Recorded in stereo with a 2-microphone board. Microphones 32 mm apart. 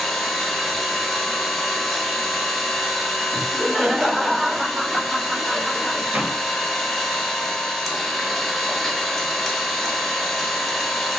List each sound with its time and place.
0.0 s an engine running: 5° left (ahead or behind), 0.8 m
3.3 s laughter: 25° right (ahead or behind), 1.6 m
6.1 s a door slam: 45° right (ahead or behind), 0.9 m